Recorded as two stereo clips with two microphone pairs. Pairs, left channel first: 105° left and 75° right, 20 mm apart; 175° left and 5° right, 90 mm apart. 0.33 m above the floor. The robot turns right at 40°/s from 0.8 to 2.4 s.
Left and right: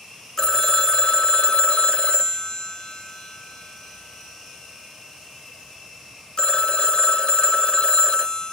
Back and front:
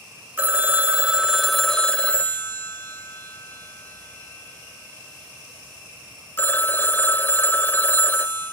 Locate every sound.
0.4 s a phone ringing: 55° left, 0.6 m; by 8.5 s 120° left, 0.6 m